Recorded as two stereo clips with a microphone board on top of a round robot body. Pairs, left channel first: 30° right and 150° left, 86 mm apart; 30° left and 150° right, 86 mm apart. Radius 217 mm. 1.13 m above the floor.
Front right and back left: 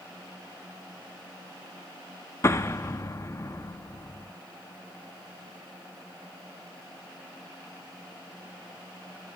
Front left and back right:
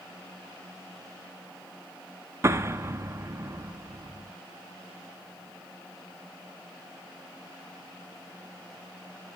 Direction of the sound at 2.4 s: 90° right.